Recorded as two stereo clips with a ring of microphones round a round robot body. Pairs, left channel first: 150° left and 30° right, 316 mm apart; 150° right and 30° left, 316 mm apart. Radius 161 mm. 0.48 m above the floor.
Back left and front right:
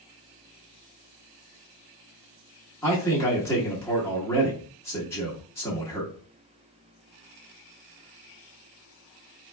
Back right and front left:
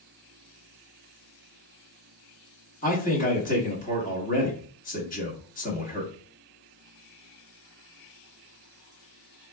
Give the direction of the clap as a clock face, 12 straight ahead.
I don't hear a clap.